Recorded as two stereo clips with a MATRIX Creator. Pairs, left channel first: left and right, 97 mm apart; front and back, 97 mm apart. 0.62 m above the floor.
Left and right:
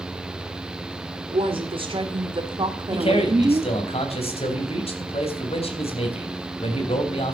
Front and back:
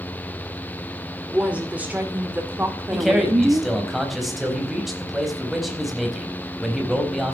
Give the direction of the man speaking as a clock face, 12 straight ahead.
9 o'clock.